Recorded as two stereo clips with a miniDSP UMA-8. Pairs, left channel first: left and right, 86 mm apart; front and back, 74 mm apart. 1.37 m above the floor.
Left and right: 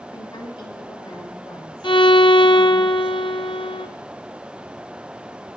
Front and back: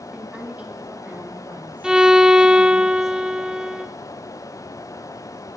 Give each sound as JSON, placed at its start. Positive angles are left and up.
{"t": 0.1, "sound": "a woman speaking", "azimuth_deg": 105, "distance_m": 3.0}
{"t": 1.8, "sound": "a violin", "azimuth_deg": 100, "distance_m": 0.7}